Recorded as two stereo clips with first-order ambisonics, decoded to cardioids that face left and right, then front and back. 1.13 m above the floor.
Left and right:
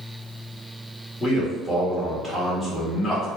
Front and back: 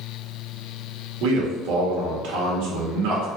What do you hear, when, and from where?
1.2 s a man speaking: 165° left, 1.9 m